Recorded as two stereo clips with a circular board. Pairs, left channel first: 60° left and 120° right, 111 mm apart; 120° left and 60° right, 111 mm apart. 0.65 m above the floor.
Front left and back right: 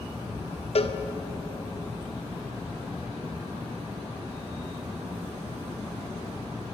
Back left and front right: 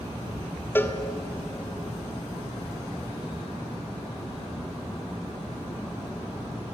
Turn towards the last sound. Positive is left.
turn(degrees=50)